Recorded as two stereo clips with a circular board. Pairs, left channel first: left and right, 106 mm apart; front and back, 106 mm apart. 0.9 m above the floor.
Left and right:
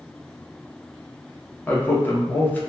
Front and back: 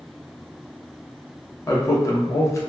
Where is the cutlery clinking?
No cutlery clinking in this recording.